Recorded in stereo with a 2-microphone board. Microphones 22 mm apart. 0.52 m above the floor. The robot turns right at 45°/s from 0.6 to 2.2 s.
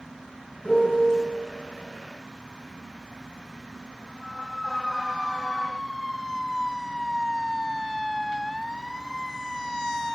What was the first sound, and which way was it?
A piano, 50° left (ahead or behind).